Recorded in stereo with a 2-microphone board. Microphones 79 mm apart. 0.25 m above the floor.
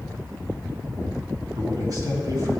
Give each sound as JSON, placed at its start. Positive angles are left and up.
{"t": 1.6, "sound": "a man speaking", "side_deg": -50, "distance_m": 1.9}